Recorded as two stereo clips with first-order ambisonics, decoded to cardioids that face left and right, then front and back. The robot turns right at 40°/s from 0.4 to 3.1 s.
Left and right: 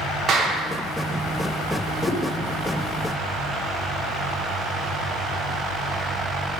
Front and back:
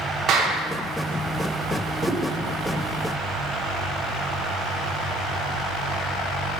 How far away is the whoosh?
About 0.9 m.